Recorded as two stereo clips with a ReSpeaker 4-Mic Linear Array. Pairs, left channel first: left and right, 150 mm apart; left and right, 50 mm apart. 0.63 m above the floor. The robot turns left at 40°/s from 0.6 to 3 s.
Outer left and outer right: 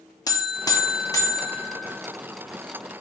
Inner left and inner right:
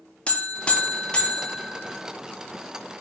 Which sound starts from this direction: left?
A buzzer, at 0.3 s.